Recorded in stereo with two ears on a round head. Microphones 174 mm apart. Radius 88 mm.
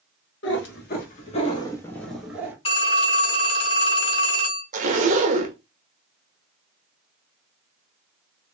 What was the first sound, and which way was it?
A cat meowing, 65° left (ahead or behind).